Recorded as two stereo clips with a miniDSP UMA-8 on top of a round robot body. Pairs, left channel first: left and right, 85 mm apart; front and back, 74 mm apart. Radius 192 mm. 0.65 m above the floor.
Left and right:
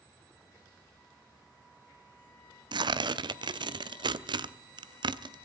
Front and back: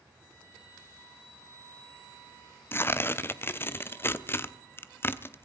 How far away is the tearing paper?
About 0.9 m.